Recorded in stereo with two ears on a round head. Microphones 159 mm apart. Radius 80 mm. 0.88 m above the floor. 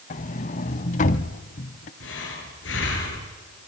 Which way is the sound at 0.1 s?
45° left (ahead or behind).